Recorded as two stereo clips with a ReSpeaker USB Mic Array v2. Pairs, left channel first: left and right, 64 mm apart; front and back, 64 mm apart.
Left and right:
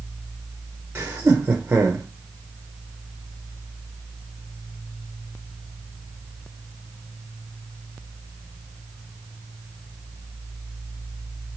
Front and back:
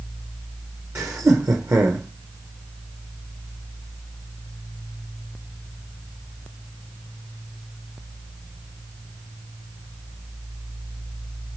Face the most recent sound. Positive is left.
turn(degrees=-145)